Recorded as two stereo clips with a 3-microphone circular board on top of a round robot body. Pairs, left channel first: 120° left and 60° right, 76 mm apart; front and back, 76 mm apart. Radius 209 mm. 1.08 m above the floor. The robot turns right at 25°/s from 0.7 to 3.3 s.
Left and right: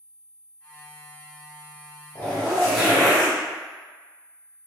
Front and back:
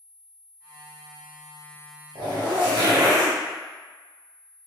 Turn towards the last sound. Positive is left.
turn(degrees=-140)